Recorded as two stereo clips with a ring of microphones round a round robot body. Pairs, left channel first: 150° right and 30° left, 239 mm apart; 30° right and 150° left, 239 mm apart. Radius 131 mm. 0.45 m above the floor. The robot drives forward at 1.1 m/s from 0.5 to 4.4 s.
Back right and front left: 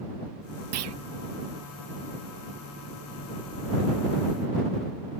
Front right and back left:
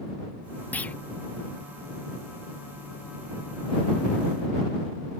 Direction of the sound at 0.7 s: 55° left.